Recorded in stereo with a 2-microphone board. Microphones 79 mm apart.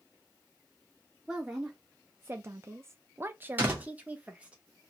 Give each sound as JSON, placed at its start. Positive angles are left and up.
{"t": 1.3, "sound": "a woman speaking", "side_deg": -10, "distance_m": 0.9}
{"t": 3.6, "sound": "a door slam", "side_deg": -25, "distance_m": 1.4}